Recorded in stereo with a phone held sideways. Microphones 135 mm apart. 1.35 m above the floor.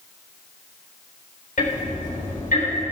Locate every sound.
1.6 s ticking: 80° left, 4 m